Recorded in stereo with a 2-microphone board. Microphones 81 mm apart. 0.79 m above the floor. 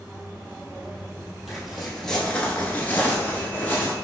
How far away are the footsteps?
About 1.4 m.